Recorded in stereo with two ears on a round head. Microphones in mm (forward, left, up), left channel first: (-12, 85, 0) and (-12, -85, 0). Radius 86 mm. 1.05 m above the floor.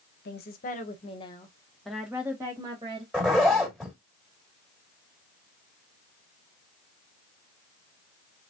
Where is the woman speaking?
55° left (ahead or behind), 1.1 m; by 3.0 s 25° right (ahead or behind), 1.5 m.